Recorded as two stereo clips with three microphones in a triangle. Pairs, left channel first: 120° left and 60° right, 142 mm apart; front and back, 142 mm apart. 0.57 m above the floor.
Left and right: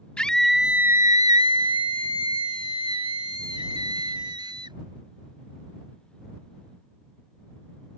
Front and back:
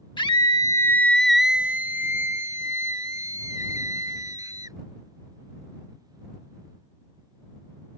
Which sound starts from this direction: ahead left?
A scream, at 0.2 s.